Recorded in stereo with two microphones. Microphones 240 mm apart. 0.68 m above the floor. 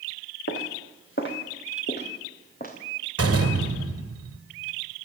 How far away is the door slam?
About 2 m.